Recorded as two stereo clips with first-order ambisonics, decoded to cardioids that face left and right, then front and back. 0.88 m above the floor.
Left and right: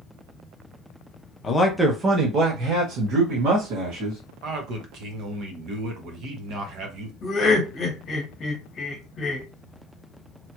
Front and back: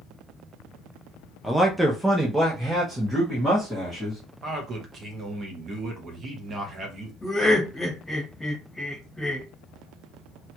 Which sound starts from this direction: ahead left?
Laughter, at 7.2 s.